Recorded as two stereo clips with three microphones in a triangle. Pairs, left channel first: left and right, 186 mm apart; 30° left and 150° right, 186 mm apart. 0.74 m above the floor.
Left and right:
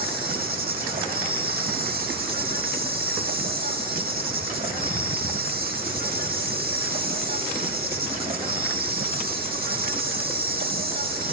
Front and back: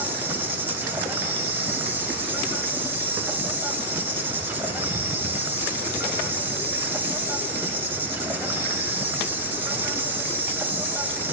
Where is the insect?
70° right, 0.8 m.